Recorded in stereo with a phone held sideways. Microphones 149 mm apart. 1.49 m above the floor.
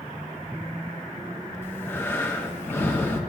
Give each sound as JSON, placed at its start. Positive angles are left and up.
{"t": 1.6, "sound": "breathing", "side_deg": 15, "distance_m": 0.8}